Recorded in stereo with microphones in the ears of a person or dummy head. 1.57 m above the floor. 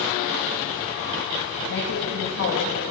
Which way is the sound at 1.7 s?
70° left (ahead or behind).